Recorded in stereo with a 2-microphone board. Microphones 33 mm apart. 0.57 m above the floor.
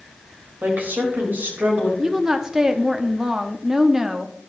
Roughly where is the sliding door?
I don't hear a sliding door.